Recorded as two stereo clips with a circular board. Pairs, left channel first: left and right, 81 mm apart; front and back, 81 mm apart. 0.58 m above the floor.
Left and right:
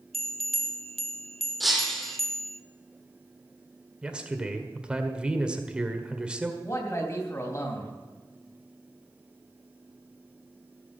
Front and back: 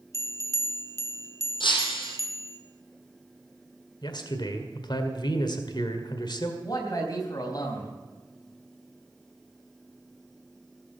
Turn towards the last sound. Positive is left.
turn(degrees=40)